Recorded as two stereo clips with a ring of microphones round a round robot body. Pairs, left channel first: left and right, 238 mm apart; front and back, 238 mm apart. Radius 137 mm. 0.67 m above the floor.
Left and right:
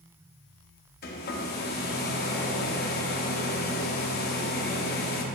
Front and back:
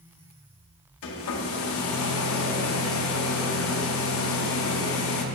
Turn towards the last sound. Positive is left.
turn(degrees=35)